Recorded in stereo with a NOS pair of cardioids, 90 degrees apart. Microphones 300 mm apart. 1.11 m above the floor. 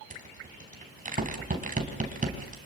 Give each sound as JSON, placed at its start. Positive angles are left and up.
{"t": 0.1, "sound": "a rattle", "azimuth_deg": -25, "distance_m": 3.5}